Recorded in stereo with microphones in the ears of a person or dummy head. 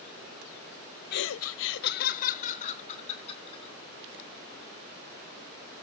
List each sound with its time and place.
1.1 s laughter: 55° left (ahead or behind), 0.5 m; by 3.7 s 30° left (ahead or behind), 2.5 m